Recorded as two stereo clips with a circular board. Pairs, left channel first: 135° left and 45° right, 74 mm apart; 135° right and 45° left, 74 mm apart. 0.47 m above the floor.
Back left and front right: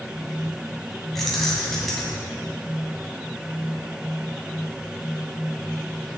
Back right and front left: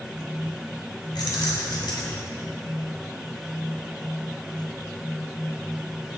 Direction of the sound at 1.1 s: 140° right.